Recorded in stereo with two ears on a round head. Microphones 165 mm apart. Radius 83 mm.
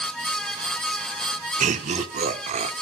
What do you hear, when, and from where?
1.6 s laughter: 40° right (ahead or behind), 1.1 m